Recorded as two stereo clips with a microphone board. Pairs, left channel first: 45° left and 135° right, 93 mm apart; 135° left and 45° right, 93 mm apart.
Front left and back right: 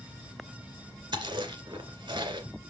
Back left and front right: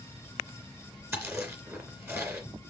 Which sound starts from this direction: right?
Chewing, at 1.1 s.